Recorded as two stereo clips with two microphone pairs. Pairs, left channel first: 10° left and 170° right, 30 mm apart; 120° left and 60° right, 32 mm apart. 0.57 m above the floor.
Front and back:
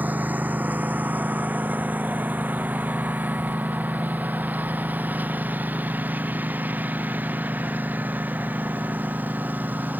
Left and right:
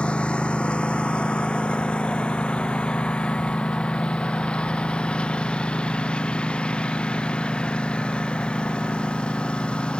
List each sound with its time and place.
0.0 s a lawn mower: 170° left; by 10.0 s 175° left